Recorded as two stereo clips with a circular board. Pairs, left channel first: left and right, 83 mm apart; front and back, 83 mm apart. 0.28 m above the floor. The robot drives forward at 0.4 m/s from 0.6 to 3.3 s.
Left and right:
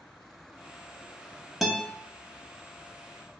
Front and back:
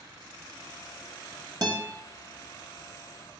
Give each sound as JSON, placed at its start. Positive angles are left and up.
{"t": 1.6, "sound": "a guitar", "azimuth_deg": -175, "distance_m": 0.8}